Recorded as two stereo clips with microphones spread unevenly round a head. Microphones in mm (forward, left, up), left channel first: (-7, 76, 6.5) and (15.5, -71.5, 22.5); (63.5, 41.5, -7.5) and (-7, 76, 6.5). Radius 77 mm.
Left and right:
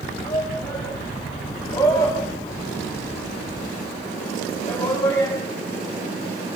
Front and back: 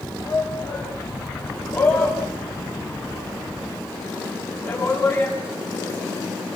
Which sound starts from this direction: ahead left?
A shout, at 0.2 s.